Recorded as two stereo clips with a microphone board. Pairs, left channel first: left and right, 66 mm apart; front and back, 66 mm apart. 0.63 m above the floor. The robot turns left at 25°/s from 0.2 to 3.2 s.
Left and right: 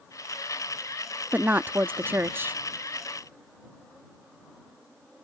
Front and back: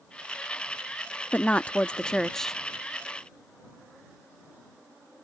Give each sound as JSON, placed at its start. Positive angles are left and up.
{"t": 1.3, "sound": "a woman speaking", "azimuth_deg": -50}